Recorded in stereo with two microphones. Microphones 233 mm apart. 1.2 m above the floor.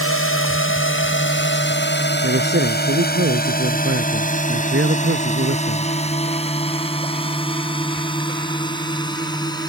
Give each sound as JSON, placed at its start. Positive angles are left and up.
{"t": 0.0, "sound": "a drone", "side_deg": 65}
{"t": 2.2, "sound": "a man speaking", "side_deg": -55}